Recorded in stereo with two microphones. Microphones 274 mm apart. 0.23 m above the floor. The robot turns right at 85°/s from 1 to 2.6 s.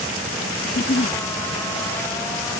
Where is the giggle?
40° left (ahead or behind); by 1.2 s 25° left (ahead or behind).